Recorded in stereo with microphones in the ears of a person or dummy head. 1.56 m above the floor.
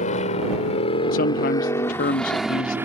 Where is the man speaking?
55° left (ahead or behind).